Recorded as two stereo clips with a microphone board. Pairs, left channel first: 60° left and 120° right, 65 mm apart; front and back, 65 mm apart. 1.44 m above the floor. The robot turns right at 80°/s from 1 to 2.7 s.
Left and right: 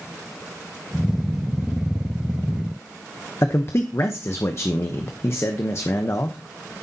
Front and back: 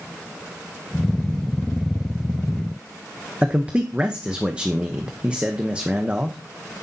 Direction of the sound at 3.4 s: 110° left.